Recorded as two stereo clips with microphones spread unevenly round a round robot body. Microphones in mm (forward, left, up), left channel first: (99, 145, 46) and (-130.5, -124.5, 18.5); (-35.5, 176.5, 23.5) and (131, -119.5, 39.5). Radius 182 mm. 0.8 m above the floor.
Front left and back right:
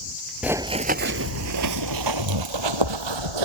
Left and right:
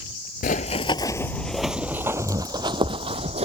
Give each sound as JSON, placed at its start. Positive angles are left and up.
{"t": 0.4, "sound": "running footsteps", "azimuth_deg": 135}